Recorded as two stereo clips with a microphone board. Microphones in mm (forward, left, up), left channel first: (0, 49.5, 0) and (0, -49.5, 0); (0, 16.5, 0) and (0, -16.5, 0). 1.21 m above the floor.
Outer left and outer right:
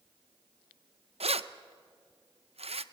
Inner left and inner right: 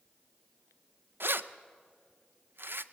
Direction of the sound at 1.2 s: 85° right.